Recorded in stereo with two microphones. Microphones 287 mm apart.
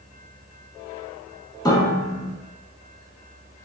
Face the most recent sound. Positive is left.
turn(degrees=15)  # may be behind; listen again after turning